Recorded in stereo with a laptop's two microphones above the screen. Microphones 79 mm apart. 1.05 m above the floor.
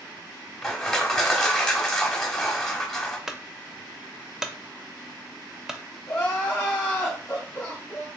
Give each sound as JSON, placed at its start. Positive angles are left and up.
{"t": 0.6, "sound": "crushing", "side_deg": 10, "distance_m": 0.9}
{"t": 3.3, "sound": "a clunk", "side_deg": -5, "distance_m": 0.5}
{"t": 6.1, "sound": "crying", "side_deg": 30, "distance_m": 1.5}